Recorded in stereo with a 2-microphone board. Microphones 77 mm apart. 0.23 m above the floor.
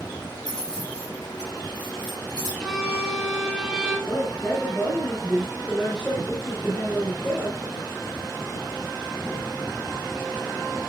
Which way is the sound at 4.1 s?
10° left (ahead or behind).